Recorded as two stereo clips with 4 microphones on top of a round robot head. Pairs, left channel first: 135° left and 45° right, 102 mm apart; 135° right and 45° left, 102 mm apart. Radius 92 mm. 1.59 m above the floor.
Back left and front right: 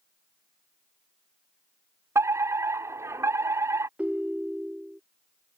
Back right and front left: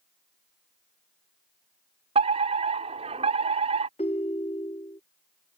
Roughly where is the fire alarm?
Ahead.